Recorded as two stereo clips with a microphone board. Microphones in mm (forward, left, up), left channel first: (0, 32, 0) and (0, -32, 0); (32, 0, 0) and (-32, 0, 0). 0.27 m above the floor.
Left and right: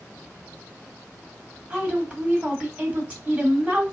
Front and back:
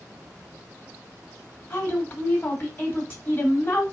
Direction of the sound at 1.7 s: 35° right.